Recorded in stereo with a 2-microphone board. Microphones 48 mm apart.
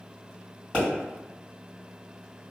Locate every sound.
0.7 s a pop: 20° left (ahead or behind), 1.9 m